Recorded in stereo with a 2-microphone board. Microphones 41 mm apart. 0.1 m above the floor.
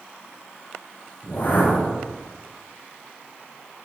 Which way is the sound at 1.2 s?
50° left (ahead or behind).